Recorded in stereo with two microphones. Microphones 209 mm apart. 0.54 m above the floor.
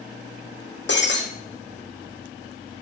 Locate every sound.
0.9 s breaking glass: 60° left (ahead or behind), 3 m